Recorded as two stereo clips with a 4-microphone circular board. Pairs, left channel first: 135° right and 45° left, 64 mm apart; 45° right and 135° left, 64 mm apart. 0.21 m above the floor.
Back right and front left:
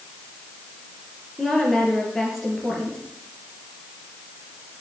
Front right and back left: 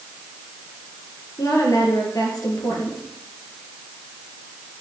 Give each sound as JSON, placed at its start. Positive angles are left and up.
{"t": 1.4, "sound": "a woman speaking", "azimuth_deg": -50, "distance_m": 4.0}